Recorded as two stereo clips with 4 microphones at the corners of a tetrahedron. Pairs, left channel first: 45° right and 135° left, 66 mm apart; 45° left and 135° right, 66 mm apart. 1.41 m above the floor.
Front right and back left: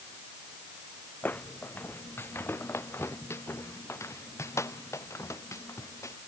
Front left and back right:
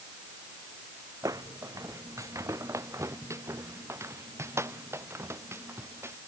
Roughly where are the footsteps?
Right.